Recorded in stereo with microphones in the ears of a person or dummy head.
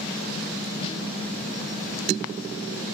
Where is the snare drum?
30° left (ahead or behind), 3 m.